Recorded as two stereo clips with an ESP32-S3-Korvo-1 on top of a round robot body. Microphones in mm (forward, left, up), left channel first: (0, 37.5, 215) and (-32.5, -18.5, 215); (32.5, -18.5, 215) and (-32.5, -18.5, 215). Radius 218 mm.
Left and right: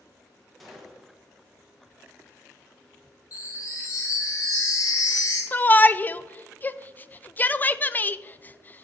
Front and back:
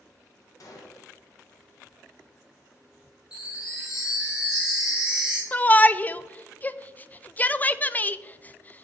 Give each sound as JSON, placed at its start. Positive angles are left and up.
{"t": 0.6, "sound": "a gunshot", "azimuth_deg": -30, "distance_m": 1.0}
{"t": 3.3, "sound": "a chime", "azimuth_deg": 100, "distance_m": 1.2}
{"t": 5.5, "sound": "a shout", "azimuth_deg": 35, "distance_m": 0.5}